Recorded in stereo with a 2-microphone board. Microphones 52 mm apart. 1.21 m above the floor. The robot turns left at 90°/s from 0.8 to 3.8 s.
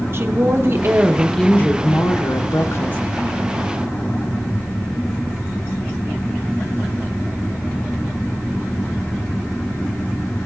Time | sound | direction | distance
0.1 | a woman speaking | 135° right | 0.9 m